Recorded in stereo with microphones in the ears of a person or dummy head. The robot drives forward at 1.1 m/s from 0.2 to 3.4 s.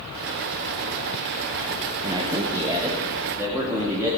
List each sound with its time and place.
2.0 s a man speaking: 15° right (ahead or behind), 1.1 m; by 4.1 s 5° right (ahead or behind), 2.5 m